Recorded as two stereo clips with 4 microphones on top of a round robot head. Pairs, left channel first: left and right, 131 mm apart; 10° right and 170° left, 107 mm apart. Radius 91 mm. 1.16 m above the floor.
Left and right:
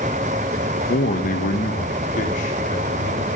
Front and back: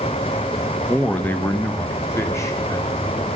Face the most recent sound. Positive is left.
turn(degrees=50)